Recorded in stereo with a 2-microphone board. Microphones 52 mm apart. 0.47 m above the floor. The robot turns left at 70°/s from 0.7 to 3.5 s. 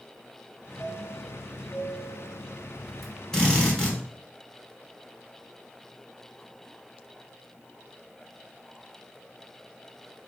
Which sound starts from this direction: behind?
A chime, at 0.8 s.